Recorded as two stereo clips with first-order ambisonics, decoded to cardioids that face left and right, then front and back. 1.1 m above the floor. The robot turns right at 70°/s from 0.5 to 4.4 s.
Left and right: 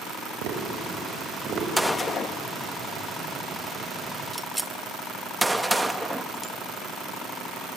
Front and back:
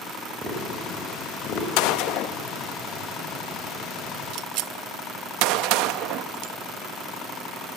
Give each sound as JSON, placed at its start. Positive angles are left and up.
{"t": 0.4, "sound": "tapping", "azimuth_deg": -110, "distance_m": 4.5}
{"t": 1.8, "sound": "a gunshot", "azimuth_deg": 0, "distance_m": 0.6}